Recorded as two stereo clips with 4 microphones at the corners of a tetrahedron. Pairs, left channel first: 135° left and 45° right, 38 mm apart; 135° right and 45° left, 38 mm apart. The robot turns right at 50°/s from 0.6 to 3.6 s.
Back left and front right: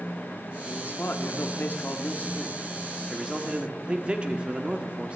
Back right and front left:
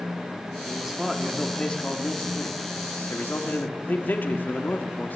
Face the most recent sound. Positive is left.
turn(degrees=-105)